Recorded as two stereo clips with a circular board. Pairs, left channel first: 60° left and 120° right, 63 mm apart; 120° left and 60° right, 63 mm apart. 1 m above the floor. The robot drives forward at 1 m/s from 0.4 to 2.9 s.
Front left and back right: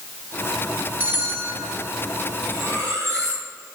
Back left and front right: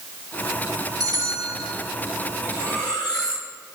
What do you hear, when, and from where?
1.0 s a bell: 60° right, 5.5 m; by 1.7 s 70° right, 5 m
2.4 s cutlery clinking: 165° right, 7.5 m